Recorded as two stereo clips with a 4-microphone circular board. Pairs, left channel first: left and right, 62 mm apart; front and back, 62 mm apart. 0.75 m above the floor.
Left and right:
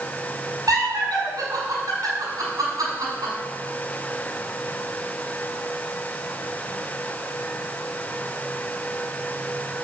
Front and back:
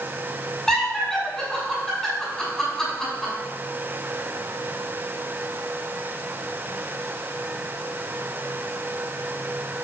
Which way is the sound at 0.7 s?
80° right.